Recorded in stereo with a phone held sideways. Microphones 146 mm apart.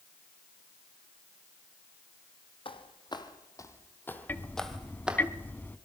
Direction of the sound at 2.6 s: 35° left (ahead or behind).